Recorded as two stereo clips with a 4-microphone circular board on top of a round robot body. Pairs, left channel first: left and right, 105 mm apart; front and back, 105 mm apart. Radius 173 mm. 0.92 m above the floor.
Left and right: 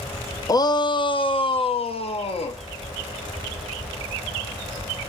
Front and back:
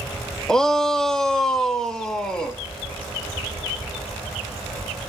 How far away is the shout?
About 0.9 m.